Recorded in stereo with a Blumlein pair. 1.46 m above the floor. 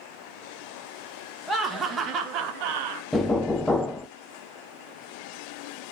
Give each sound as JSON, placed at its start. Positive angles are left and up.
{"t": 1.5, "sound": "laughter", "azimuth_deg": 0, "distance_m": 1.5}
{"t": 3.1, "sound": "knocking", "azimuth_deg": 10, "distance_m": 0.6}